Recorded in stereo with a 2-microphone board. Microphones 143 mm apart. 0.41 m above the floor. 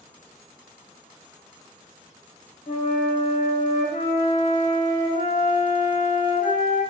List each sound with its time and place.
2.7 s a flute: 75° left (ahead or behind), 0.8 m